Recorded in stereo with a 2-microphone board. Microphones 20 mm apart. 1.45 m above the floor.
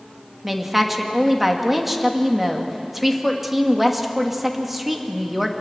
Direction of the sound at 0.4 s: 10° right (ahead or behind).